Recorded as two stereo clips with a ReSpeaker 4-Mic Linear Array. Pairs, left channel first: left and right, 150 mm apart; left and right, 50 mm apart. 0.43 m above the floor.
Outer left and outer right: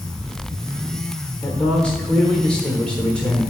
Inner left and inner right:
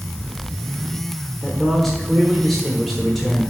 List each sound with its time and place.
1.4 s a man speaking: 5° left (ahead or behind), 1.3 m